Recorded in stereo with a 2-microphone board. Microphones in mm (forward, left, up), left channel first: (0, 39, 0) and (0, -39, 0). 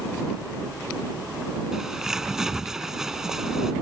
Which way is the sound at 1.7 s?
5° right (ahead or behind).